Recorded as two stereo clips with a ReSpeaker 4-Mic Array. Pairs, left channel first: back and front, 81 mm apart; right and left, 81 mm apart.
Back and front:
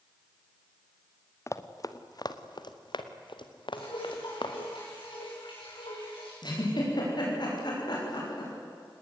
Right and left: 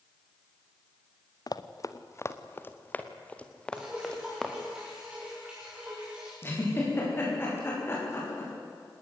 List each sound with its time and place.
1.5 s running footsteps: 125° right, 1.4 m; by 4.5 s 175° right, 3 m
3.7 s dripping: 170° left, 8 m
6.4 s a giggle: 150° right, 9 m